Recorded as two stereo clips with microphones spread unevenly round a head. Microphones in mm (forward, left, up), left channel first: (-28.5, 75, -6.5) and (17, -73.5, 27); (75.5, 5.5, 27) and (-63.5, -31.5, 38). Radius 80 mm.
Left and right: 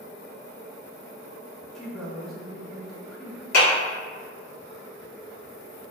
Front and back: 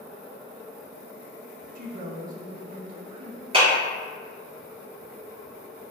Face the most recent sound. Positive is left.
turn(degrees=140)